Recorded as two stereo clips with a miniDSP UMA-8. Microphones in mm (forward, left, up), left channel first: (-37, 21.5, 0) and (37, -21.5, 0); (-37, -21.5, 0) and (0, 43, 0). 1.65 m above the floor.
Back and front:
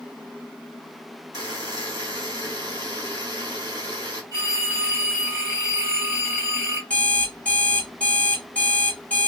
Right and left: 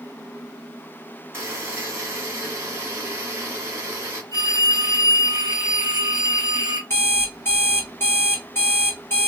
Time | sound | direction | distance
1.3 | a buzzer | 5° left | 1.9 m
4.3 | a phone ringing | 30° left | 2 m
6.9 | an alarm clock | 145° right | 1.2 m